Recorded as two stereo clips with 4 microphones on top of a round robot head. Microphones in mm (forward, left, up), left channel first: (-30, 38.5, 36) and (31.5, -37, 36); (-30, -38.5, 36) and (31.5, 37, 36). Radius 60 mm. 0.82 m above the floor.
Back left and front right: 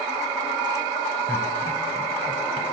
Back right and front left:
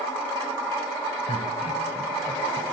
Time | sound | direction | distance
1.3 | laughter | 160° right | 4 m